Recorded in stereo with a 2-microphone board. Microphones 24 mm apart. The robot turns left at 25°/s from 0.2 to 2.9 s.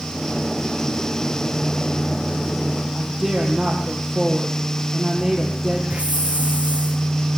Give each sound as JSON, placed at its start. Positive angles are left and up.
{"t": 3.0, "sound": "a woman speaking", "side_deg": -5, "distance_m": 6.0}
{"t": 5.9, "sound": "a hiss", "side_deg": -75, "distance_m": 5.0}